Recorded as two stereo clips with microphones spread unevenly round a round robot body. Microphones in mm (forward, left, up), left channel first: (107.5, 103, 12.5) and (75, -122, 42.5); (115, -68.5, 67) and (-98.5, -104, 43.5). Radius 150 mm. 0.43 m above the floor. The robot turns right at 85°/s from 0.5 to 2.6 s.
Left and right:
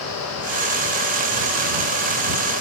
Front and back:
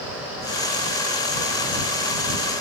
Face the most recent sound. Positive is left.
No sound to turn to.